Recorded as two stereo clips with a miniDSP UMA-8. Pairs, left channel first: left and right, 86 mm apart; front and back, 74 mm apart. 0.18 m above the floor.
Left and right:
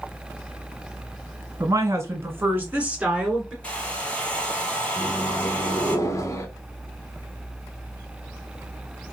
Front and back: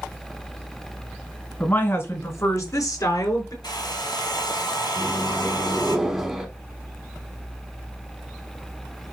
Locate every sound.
1.6 s a woman speaking: 60° right, 1.7 m; by 3.5 s 10° right, 2.5 m
3.6 s a hair dryer: 15° left, 1.3 m
5.0 s a microwave: 100° left, 0.9 m